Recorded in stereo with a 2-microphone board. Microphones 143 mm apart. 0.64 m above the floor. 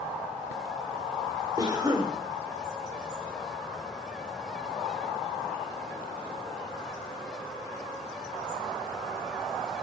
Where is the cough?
30° right (ahead or behind), 2 m.